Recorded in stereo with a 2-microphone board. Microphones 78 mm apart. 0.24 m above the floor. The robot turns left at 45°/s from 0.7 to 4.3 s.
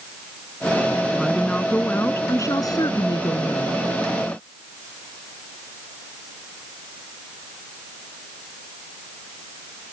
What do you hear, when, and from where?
1.1 s a woman speaking: 175° right; by 3.8 s 65° left